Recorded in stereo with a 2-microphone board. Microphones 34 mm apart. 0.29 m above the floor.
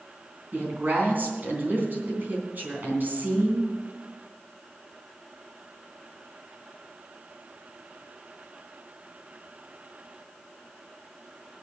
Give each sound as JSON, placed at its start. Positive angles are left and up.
{"t": 0.5, "sound": "a woman speaking", "side_deg": -60, "distance_m": 3.5}